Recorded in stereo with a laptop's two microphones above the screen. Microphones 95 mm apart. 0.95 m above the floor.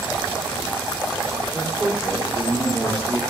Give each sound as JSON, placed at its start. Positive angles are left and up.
{"t": 1.5, "sound": "a man speaking", "side_deg": -10, "distance_m": 3.0}